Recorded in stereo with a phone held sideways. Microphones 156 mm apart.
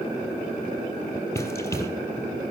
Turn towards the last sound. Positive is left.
turn(degrees=20)  # may be behind; listen again after turning